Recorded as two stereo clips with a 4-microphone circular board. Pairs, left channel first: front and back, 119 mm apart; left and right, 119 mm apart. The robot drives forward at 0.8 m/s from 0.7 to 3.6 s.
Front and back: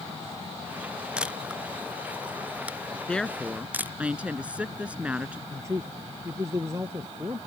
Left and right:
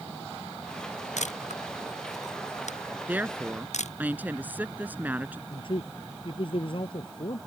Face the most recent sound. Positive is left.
turn(degrees=120)